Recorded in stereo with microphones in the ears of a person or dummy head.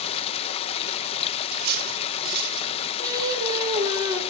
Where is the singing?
20° right (ahead or behind), 3.5 m.